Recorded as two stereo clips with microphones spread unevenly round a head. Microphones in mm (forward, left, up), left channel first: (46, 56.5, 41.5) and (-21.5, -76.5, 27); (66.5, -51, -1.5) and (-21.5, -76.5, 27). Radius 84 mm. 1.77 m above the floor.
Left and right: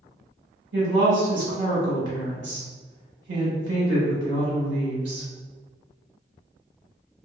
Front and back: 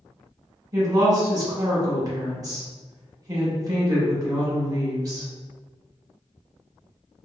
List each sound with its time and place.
0.7 s a woman speaking: 135° right, 1.1 m